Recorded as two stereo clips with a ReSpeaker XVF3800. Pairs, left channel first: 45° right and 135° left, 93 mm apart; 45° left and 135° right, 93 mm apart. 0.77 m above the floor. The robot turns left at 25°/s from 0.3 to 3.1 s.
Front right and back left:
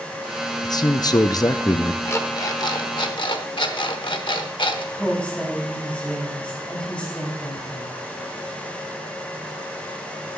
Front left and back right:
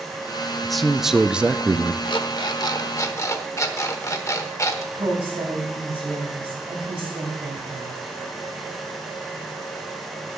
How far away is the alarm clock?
About 1.0 m.